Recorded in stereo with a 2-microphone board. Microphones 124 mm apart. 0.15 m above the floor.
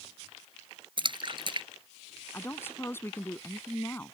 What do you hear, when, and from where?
1.0 s a splash: 40° right (ahead or behind)
2.3 s a woman speaking: 20° left (ahead or behind)